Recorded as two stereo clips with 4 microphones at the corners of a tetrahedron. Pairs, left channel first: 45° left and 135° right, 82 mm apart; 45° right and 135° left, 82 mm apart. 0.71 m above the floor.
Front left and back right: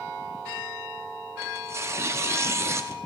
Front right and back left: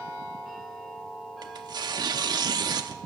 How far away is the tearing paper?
About 0.8 m.